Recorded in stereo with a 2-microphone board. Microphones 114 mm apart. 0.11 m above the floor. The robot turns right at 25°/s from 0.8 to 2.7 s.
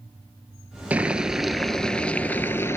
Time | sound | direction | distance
0.9 | boiling | 15° right | 0.7 m